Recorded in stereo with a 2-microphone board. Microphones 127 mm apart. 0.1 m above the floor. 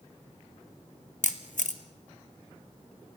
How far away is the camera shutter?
About 1.4 m.